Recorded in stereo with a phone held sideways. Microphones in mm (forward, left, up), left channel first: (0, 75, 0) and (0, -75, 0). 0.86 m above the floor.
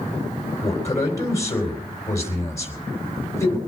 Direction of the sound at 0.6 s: 20° left (ahead or behind).